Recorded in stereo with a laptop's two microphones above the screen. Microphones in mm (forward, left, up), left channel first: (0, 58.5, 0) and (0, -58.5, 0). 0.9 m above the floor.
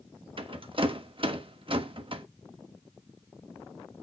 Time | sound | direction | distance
0.4 | a rattle | 50° right (ahead or behind) | 1.2 m